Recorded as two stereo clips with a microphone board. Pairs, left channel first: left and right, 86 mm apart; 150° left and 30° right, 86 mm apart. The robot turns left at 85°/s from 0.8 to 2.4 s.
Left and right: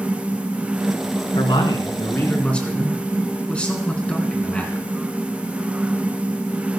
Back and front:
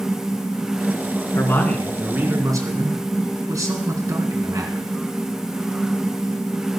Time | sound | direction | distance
1.4 | a man speaking | 105° left | 3 m